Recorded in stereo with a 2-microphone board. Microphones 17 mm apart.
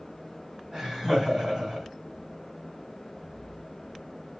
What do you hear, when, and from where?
0.7 s laughter: 35° right (ahead or behind), 1.7 m